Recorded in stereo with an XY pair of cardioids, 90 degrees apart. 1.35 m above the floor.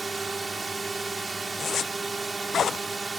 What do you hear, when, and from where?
0.0 s a drone: 30° right
1.6 s a zipper: 55° left